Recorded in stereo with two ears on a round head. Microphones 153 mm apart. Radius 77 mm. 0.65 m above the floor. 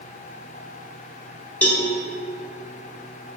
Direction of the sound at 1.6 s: 10° left (ahead or behind).